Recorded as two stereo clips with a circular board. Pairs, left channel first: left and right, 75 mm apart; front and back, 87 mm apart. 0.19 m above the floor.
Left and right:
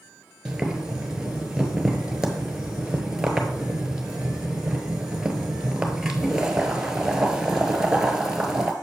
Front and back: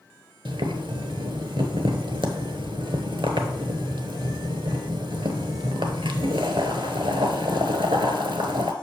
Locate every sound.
0.5 s boiling: 170° right, 0.9 m